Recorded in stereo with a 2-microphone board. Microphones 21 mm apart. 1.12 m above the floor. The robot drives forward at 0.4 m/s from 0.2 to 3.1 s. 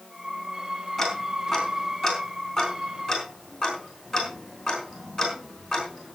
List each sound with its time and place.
1.0 s ticking: 5° left (ahead or behind), 4 m